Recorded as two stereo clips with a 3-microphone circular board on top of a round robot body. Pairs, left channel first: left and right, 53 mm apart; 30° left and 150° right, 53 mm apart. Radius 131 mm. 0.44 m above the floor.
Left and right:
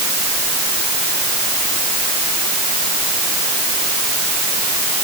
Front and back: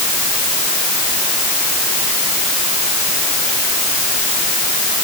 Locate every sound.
Only background noise.